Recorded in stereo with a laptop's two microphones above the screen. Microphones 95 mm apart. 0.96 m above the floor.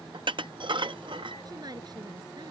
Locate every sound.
0.1 s dishes clattering: 55° right (ahead or behind)
1.4 s a woman speaking: 45° right (ahead or behind)